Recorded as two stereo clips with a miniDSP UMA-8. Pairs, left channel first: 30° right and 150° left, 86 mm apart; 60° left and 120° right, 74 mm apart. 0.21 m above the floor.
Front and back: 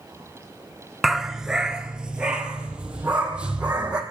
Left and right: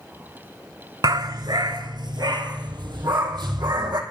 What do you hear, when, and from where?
1.0 s a dog barking: 125° right, 0.6 m; by 4.0 s 130° right, 3 m